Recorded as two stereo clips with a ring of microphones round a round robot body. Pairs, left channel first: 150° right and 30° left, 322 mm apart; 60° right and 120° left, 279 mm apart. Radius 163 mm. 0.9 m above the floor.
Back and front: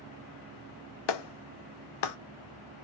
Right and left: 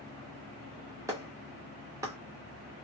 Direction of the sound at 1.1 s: 160° right.